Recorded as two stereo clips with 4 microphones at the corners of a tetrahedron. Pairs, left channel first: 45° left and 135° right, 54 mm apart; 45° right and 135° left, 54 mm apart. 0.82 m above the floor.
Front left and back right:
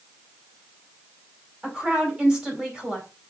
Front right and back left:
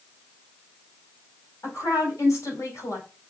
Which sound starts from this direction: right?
A woman speaking, at 1.6 s.